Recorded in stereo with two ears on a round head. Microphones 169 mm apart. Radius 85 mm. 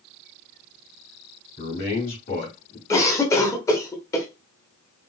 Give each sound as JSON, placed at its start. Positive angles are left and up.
{"t": 1.6, "sound": "a man speaking", "side_deg": 40, "distance_m": 1.4}
{"t": 2.9, "sound": "a cough", "side_deg": 15, "distance_m": 0.9}